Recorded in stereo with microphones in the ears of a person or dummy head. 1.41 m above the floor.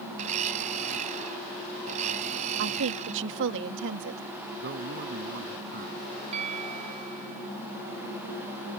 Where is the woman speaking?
70° right (ahead or behind).